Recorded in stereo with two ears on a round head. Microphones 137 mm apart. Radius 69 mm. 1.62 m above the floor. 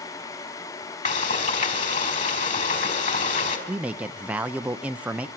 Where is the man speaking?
10° right (ahead or behind), 0.8 m.